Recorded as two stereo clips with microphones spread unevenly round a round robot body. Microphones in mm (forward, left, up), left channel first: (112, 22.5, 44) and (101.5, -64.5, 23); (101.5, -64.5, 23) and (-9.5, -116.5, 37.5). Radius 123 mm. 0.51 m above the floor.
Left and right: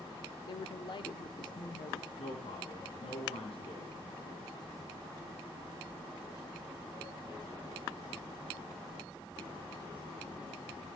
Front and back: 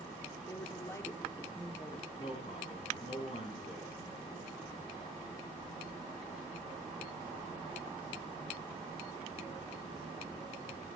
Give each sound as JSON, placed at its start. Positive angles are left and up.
{"t": 0.5, "sound": "a woman speaking", "azimuth_deg": 80, "distance_m": 1.0}
{"t": 2.2, "sound": "a man speaking", "azimuth_deg": 85, "distance_m": 5.0}